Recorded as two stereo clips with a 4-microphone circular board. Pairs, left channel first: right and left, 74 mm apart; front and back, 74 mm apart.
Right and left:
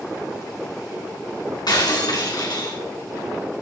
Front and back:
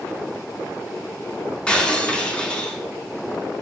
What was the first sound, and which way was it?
Breaking glass, 75° right.